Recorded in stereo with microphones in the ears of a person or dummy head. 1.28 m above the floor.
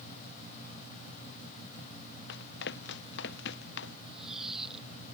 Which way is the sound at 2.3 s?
60° left (ahead or behind).